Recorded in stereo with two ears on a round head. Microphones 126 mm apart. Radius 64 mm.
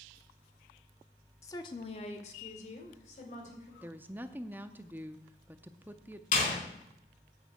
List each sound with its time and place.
1.4 s a woman speaking: 20° left (ahead or behind), 0.9 m; by 3.7 s 55° left (ahead or behind), 3.5 m
3.8 s a woman speaking: 15° right (ahead or behind), 0.6 m
6.3 s a door slam: 60° left (ahead or behind), 4 m